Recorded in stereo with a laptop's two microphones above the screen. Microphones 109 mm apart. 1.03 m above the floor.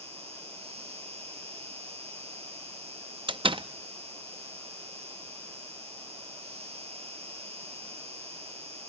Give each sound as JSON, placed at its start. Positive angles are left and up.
{"t": 0.0, "sound": "an insect", "side_deg": -70, "distance_m": 1.6}
{"t": 3.3, "sound": "a door slam", "side_deg": -55, "distance_m": 0.6}